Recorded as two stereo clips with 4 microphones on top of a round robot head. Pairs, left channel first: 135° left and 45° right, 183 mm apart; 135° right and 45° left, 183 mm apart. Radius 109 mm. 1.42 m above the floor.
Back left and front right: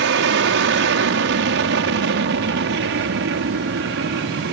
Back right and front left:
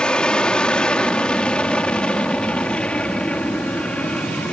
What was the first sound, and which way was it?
An aircraft, 55° right.